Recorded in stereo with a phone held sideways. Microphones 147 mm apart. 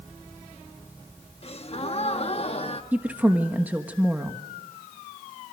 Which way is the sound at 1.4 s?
45° left (ahead or behind).